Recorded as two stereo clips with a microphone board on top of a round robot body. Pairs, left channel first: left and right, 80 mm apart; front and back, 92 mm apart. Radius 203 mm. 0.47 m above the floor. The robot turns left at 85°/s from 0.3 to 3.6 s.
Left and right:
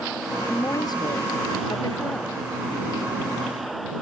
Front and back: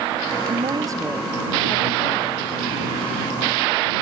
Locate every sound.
0.5 s a woman speaking: 165° left; by 2.5 s 5° right